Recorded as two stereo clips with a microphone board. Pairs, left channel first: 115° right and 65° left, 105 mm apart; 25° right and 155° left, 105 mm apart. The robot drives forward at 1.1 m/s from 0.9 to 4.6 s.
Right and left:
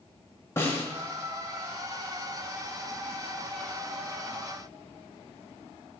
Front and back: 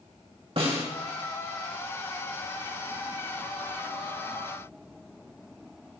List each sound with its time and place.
0.6 s a snare drum: straight behind, 2.5 m